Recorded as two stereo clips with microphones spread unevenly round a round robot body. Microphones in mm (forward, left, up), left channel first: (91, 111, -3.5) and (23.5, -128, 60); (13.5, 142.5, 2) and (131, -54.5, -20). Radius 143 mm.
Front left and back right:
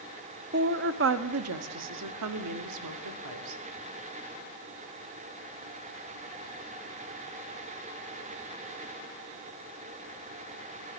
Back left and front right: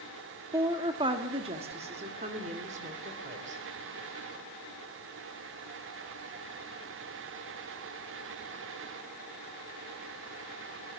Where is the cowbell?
I don't hear a cowbell.